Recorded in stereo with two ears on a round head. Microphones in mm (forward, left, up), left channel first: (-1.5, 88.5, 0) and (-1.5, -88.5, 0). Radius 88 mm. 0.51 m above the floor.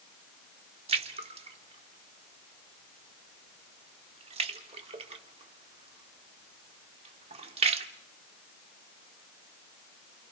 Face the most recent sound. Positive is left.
turn(degrees=-30)  # may be behind; listen again after turning